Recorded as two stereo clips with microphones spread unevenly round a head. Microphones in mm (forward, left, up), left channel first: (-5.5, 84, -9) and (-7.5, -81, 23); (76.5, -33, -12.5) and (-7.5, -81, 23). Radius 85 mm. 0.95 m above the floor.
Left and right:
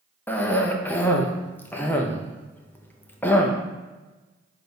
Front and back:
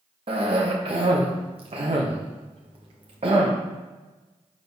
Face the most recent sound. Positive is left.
turn(degrees=155)